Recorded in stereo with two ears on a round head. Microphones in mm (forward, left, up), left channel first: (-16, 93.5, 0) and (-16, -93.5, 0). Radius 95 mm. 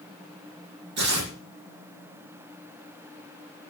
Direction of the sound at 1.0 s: 60° right (ahead or behind).